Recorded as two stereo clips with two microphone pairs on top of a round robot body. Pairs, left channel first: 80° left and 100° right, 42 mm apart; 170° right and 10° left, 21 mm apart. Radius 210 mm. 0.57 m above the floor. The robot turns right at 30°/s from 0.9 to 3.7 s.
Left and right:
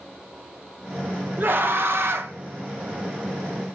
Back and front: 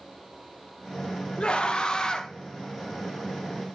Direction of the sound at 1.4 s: 140° right.